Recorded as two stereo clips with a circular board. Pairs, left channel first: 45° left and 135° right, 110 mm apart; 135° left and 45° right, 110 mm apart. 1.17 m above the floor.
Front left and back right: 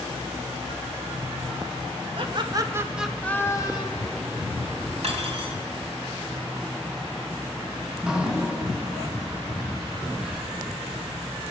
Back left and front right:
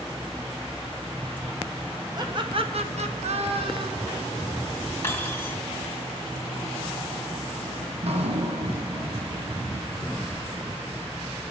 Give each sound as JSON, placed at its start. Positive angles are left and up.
{"t": 2.2, "sound": "laughter", "azimuth_deg": -100, "distance_m": 1.5}
{"t": 5.0, "sound": "cutlery clinking", "azimuth_deg": -155, "distance_m": 2.5}
{"t": 7.9, "sound": "dripping", "azimuth_deg": -55, "distance_m": 1.0}